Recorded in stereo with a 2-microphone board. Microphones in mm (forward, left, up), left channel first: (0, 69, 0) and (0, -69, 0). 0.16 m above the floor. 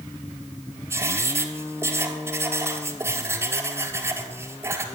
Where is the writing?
20° right (ahead or behind), 1.6 m.